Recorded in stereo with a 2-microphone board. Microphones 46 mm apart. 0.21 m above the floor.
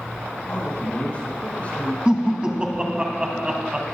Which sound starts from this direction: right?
Laughter, at 2.0 s.